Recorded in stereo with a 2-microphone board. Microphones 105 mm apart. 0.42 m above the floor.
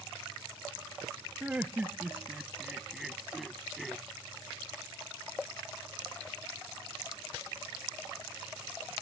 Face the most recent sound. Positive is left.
turn(degrees=0)  # may be behind; listen again after turning